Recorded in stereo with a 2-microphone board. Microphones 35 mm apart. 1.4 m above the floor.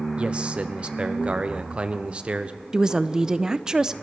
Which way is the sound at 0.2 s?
35° right (ahead or behind).